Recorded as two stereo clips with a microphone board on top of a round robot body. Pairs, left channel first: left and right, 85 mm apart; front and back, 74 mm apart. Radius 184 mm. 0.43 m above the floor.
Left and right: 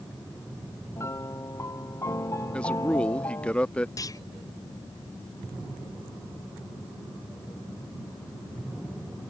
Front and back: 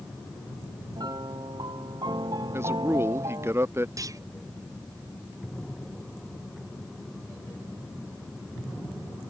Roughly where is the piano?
Behind left.